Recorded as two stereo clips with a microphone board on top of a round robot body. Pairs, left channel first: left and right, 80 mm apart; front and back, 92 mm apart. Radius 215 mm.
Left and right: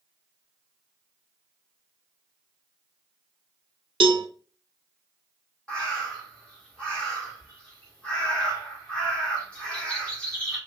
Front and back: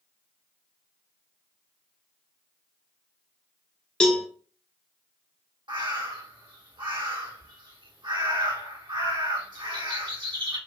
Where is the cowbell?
80° right, 0.5 m.